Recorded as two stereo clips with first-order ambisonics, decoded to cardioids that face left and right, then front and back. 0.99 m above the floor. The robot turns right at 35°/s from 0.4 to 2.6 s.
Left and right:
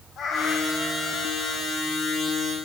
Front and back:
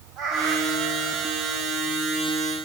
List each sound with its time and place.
0.2 s a cat meowing: 145° left, 1.3 m; by 1.6 s 170° right, 1.3 m